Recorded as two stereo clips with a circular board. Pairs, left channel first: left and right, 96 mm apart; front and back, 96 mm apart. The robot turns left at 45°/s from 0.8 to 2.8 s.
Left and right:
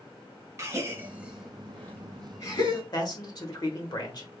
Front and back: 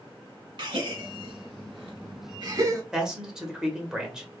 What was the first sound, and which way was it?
A gasp, 150° right.